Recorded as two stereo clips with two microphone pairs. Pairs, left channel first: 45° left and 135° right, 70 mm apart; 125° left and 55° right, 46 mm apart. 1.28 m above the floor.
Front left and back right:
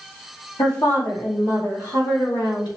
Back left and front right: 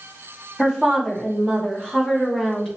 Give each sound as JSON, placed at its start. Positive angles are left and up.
{"t": 0.6, "sound": "a woman speaking", "azimuth_deg": 45, "distance_m": 2.0}